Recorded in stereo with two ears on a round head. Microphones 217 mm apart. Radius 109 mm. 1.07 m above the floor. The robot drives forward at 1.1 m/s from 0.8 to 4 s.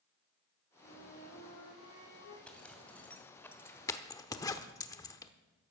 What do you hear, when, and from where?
0.8 s a flute: 50° left (ahead or behind), 5.5 m; by 2.4 s 65° left (ahead or behind), 4.5 m
2.5 s a zipper: 5° left (ahead or behind), 2.5 m; by 5.3 s 15° left (ahead or behind), 0.9 m